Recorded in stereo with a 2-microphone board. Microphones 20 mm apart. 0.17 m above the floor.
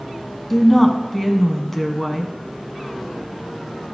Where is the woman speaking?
10° left (ahead or behind), 1.1 m.